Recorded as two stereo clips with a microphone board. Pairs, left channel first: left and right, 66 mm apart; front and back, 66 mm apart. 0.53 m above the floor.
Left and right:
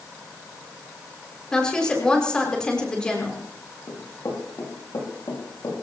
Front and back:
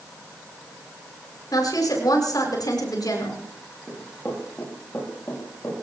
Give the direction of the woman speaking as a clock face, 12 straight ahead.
12 o'clock.